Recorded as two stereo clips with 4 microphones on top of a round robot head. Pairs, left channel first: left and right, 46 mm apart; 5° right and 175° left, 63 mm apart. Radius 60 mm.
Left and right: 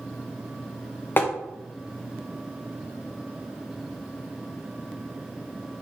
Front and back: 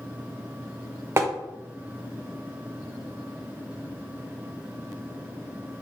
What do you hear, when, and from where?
1.2 s tapping: 130° left, 0.6 m